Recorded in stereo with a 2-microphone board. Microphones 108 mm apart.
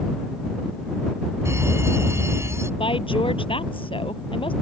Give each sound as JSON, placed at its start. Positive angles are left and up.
{"t": 1.4, "sound": "a fire alarm", "side_deg": -25}
{"t": 2.8, "sound": "a woman speaking", "side_deg": 55}